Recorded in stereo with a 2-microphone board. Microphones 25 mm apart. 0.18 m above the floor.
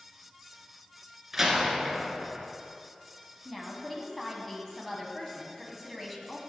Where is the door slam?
10° right (ahead or behind), 1.7 m.